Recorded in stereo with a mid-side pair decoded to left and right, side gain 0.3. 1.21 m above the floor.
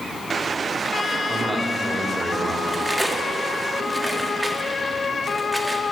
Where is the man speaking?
15° right, 3.5 m.